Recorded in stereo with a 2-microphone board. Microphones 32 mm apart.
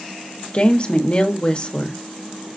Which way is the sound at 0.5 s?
35° left (ahead or behind).